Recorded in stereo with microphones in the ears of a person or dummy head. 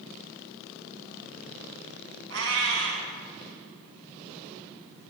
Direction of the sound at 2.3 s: 70° right (ahead or behind).